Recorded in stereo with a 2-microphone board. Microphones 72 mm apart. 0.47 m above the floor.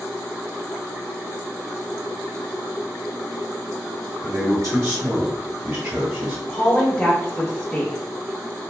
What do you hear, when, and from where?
4.2 s a man speaking: 45° right (ahead or behind), 1.1 m; by 6.4 s 30° right (ahead or behind), 1.7 m
6.5 s a woman speaking: 20° left (ahead or behind), 0.9 m